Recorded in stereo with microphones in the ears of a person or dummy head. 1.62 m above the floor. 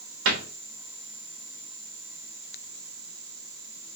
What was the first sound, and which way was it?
A cupboard door, 65° right (ahead or behind).